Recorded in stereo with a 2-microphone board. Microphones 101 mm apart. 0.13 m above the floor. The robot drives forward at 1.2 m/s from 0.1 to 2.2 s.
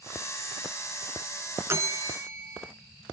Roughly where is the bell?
Right.